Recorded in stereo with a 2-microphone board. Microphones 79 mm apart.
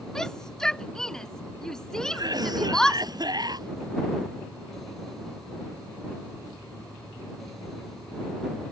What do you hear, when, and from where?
0.1 s a shout: 5° left (ahead or behind)
2.1 s a cough: 60° right (ahead or behind)